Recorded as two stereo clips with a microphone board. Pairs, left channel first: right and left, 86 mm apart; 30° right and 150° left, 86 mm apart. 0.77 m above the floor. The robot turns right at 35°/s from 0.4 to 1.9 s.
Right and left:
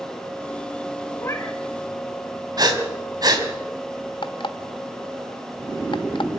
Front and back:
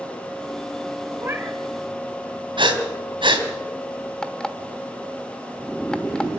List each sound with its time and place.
1.2 s a cat meowing: 150° right, 2 m; by 1.6 s 140° right, 2 m
2.6 s breathing: 130° left, 3 m
4.2 s an alarm clock: 110° right, 1.2 m